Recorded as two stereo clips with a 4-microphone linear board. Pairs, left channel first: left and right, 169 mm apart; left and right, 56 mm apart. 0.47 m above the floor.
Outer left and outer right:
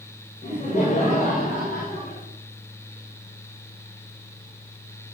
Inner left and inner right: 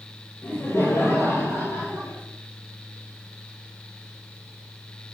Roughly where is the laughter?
Left.